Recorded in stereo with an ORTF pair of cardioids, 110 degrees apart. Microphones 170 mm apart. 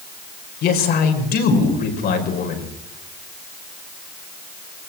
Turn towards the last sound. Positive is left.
turn(degrees=65)